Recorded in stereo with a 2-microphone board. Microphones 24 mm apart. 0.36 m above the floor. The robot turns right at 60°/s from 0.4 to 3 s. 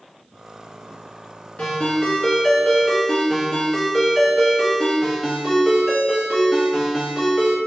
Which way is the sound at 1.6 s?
105° left.